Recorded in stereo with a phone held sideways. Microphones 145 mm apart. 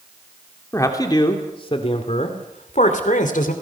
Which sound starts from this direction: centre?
A man speaking, at 0.7 s.